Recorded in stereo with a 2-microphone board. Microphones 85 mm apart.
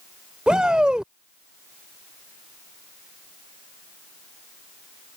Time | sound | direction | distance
0.5 | a shout | 10° right (ahead or behind) | ?